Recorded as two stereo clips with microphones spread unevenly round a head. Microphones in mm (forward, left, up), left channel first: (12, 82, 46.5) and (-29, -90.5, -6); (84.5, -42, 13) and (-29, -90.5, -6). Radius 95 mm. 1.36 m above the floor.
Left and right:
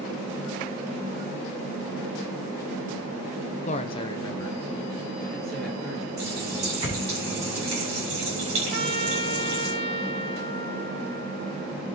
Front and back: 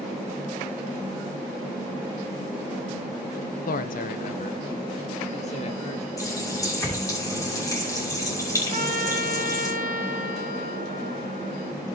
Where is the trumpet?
150° right, 1.2 m.